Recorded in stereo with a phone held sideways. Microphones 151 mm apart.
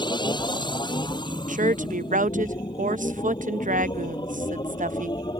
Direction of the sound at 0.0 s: 30° left (ahead or behind).